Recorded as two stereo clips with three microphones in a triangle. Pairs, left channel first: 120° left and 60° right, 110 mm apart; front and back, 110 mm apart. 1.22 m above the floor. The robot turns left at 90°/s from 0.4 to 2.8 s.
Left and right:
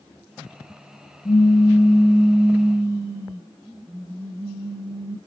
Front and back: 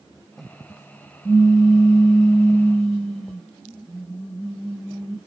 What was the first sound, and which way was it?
A pop, 65° left.